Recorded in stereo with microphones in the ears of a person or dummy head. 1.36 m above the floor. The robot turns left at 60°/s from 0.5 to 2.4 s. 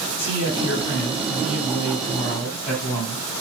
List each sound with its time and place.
0.2 s a man speaking: 130° left, 1.8 m; by 3.2 s 15° left, 1.8 m